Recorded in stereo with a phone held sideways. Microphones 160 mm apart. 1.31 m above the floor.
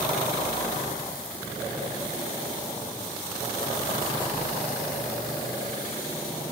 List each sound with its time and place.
Only background noise.